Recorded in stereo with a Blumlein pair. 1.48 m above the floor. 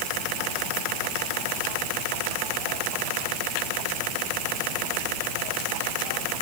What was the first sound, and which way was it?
Only background noise.